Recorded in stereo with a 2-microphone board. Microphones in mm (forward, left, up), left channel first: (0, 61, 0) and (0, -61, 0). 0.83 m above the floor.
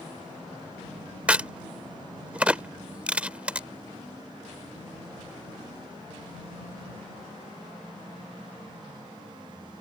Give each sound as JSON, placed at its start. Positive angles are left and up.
{"t": 1.3, "sound": "a crack", "side_deg": -10}